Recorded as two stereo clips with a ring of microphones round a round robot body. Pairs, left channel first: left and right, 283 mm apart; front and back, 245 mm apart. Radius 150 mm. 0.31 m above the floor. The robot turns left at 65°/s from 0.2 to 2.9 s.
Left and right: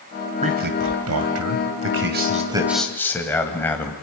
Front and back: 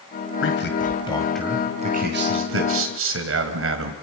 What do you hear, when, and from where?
0.4 s a man speaking: 25° right, 1.8 m; by 3.9 s 170° left, 1.8 m